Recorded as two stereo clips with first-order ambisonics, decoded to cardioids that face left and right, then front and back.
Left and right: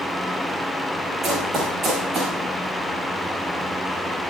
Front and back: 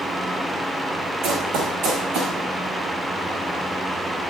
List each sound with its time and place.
1.2 s running footsteps: 160° right, 6 m; by 2.4 s 155° right, 7 m